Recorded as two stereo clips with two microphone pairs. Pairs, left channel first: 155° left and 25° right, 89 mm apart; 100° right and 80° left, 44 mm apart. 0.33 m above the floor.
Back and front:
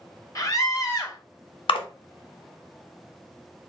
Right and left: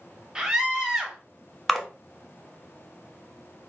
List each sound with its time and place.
0.3 s a scream: 145° left, 1.3 m
1.7 s a splash: 170° left, 0.8 m